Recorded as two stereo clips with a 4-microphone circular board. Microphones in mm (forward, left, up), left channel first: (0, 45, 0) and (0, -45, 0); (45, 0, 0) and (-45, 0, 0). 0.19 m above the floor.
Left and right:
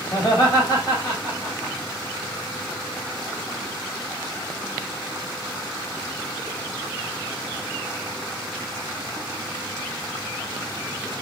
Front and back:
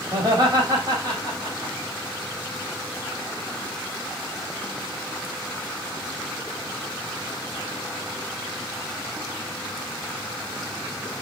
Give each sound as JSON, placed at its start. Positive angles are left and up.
{"t": 0.1, "sound": "laughter", "azimuth_deg": 130, "distance_m": 8.5}